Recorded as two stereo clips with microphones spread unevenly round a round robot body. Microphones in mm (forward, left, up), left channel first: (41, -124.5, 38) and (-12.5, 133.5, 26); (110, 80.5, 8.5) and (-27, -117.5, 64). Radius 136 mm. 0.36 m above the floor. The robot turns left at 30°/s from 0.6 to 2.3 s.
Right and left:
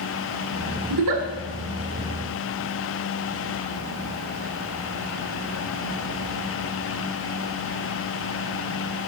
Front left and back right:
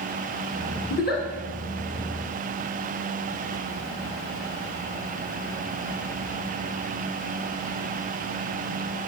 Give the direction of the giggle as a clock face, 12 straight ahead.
8 o'clock.